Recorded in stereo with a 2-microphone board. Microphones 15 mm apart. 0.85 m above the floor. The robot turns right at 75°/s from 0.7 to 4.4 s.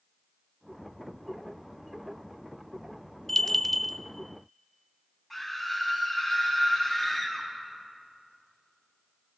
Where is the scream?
Centre (ahead or behind), 5.5 m.